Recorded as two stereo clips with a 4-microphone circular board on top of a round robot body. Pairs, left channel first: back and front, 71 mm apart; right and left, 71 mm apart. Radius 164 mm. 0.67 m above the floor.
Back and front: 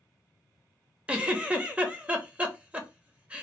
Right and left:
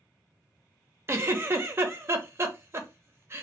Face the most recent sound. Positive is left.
turn(degrees=60)